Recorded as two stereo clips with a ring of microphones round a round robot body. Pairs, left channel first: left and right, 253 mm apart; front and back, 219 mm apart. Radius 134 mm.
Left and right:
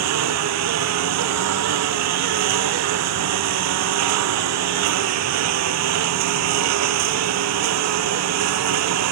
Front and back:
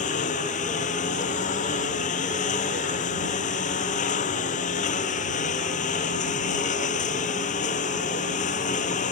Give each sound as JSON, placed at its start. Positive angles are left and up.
{"t": 0.0, "sound": "a lawn mower", "azimuth_deg": -65}